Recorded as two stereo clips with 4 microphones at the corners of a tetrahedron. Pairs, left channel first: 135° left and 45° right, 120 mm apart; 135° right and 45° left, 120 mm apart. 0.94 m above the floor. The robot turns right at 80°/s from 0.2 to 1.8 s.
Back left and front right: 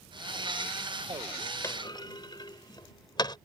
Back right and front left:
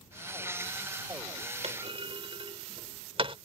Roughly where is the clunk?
Left.